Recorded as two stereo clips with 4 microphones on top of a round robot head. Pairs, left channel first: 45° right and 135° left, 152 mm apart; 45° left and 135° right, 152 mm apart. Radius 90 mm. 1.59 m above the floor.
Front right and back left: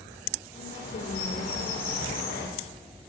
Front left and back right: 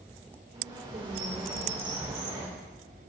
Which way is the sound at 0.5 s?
75° right.